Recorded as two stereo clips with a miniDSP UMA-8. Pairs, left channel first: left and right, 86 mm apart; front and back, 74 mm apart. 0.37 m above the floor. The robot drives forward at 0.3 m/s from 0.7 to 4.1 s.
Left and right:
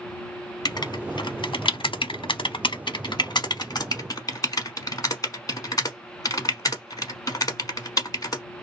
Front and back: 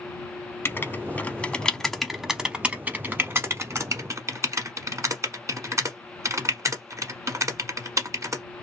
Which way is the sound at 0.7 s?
55° left.